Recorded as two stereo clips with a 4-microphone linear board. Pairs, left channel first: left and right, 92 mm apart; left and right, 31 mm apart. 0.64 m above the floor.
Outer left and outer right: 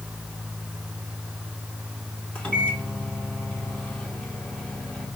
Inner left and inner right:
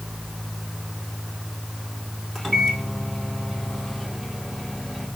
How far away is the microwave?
About 1.7 m.